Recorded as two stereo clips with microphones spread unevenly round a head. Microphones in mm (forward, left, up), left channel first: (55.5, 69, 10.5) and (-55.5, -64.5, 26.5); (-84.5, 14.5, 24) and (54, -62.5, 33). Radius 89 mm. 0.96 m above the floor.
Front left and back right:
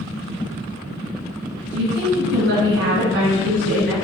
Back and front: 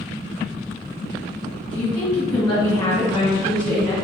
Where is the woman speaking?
135° right, 1.7 m.